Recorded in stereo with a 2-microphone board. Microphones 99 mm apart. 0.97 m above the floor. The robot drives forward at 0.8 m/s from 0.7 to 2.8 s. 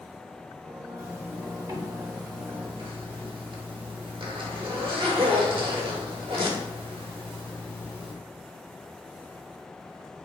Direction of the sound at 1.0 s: 30° right (ahead or behind).